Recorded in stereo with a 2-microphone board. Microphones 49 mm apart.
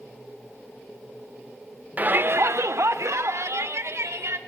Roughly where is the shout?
Right.